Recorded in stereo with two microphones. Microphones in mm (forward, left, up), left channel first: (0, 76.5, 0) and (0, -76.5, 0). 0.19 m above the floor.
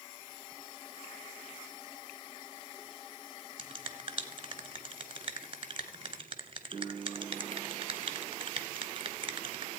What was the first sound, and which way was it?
A finger snap, 40° right (ahead or behind).